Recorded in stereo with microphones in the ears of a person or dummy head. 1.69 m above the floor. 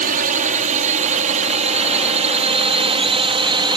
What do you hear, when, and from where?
0.0 s a drone: 45° right (ahead or behind); by 3.8 s 25° right (ahead or behind)